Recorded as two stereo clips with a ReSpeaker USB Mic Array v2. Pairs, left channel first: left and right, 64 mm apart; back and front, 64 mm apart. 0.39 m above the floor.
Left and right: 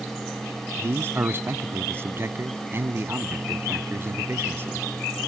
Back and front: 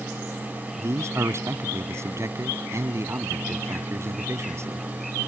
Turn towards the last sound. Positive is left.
turn(degrees=-40)